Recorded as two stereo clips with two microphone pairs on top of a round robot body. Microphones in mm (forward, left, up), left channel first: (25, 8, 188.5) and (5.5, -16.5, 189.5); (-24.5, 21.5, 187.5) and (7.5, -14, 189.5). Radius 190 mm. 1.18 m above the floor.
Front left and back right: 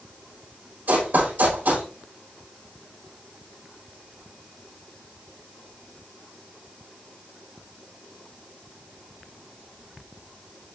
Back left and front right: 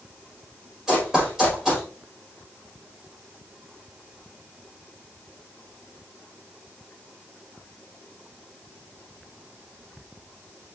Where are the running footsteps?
125° right, 5.5 m.